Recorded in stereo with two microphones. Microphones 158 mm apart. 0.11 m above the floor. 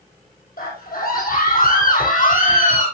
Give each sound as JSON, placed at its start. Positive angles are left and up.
{"t": 0.6, "sound": "a scream", "side_deg": 70, "distance_m": 4.5}